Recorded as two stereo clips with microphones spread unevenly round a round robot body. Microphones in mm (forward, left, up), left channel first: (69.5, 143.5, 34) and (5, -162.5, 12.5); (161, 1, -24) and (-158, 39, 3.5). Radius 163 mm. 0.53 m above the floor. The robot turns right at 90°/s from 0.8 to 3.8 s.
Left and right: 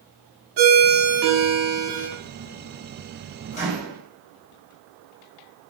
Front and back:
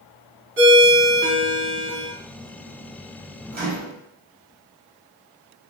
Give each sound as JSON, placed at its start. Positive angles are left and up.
{"t": 0.6, "sound": "a ringtone", "azimuth_deg": -135, "distance_m": 0.9}
{"t": 3.5, "sound": "a microwave", "azimuth_deg": 125, "distance_m": 0.9}